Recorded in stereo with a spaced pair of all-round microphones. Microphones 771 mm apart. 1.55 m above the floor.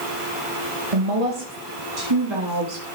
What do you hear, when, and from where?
0.9 s a woman speaking: 45° right (ahead or behind), 2.0 m; by 2.9 s 35° right (ahead or behind), 3.5 m